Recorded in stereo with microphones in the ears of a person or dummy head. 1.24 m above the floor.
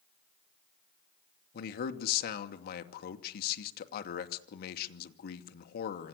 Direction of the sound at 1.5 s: 60° left (ahead or behind).